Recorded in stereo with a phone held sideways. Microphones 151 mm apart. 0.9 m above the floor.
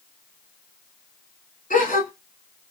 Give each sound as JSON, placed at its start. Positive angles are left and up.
{"t": 1.7, "sound": "a gasp", "side_deg": 60, "distance_m": 1.4}